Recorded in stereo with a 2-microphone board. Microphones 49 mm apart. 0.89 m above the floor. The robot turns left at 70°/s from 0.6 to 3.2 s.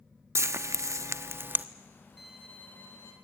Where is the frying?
70° right (ahead or behind), 0.7 m; by 1.6 s 40° right (ahead or behind), 0.7 m.